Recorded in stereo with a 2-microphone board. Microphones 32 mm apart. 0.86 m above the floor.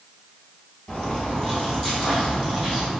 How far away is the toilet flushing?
I don't hear a toilet flushing.